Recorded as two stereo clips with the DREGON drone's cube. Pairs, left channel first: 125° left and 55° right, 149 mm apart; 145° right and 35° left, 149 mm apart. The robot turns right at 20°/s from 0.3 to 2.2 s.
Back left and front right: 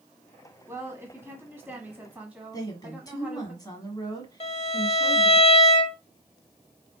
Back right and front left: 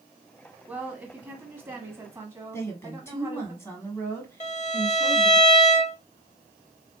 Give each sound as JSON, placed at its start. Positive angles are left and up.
{"t": 0.7, "sound": "a woman speaking", "azimuth_deg": -30, "distance_m": 1.1}
{"t": 2.5, "sound": "a woman speaking", "azimuth_deg": 160, "distance_m": 1.4}
{"t": 4.4, "sound": "a violin", "azimuth_deg": 175, "distance_m": 0.6}